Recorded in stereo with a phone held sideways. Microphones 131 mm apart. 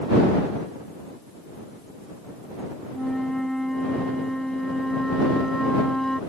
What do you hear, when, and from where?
2.9 s a flute: 5° left (ahead or behind)